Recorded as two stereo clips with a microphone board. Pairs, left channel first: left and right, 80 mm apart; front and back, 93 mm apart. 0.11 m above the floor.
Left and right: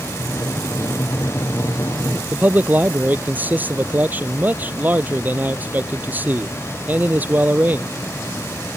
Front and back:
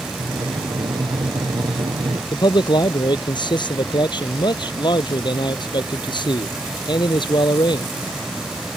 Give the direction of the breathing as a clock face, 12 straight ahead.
7 o'clock.